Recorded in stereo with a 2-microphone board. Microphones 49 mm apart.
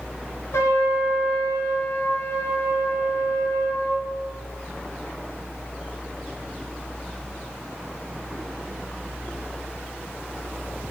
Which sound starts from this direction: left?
A trumpet, at 0.5 s.